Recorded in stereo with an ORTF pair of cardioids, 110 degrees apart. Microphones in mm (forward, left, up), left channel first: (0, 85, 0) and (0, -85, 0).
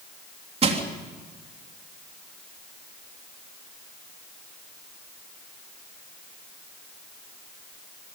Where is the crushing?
35° right, 3.5 m.